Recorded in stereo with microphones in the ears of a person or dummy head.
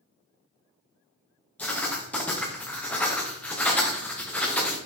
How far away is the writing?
About 0.8 m.